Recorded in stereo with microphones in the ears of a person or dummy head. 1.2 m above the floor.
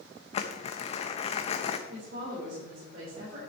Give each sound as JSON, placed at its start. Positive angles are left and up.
{"t": 0.3, "sound": "crumpling", "side_deg": 35, "distance_m": 0.8}
{"t": 1.9, "sound": "a woman speaking", "side_deg": -55, "distance_m": 4.0}